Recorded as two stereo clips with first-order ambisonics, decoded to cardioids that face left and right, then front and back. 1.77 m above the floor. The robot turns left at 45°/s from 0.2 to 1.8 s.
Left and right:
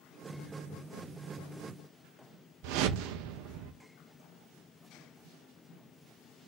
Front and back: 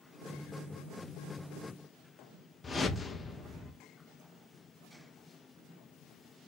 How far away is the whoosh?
About 0.8 m.